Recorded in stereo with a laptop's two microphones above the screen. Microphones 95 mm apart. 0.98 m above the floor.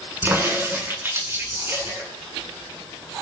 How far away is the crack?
About 9 m.